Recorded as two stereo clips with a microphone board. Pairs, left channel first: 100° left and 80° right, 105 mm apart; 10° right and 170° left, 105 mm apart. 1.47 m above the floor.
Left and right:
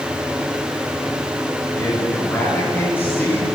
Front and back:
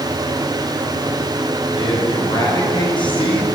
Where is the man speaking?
30° left, 9 m.